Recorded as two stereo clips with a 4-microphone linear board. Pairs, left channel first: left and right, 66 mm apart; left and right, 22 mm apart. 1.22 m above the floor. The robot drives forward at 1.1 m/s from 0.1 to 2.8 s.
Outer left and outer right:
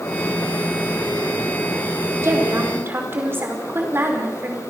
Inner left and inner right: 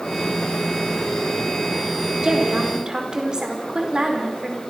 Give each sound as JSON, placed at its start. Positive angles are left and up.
{"t": 2.2, "sound": "a woman speaking", "side_deg": -40, "distance_m": 4.0}